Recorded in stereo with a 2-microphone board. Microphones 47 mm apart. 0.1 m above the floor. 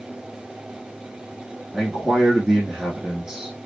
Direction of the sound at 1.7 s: 15° right (ahead or behind).